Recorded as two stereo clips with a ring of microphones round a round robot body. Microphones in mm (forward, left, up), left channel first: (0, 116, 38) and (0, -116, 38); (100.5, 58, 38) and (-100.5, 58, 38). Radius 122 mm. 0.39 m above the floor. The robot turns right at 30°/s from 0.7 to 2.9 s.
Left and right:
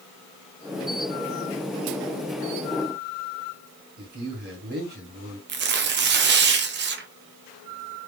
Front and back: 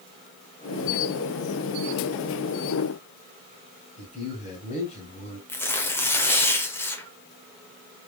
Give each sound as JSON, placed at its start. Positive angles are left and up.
{"t": 4.0, "sound": "a man speaking", "azimuth_deg": -50, "distance_m": 2.5}
{"t": 5.5, "sound": "tearing paper", "azimuth_deg": -75, "distance_m": 0.8}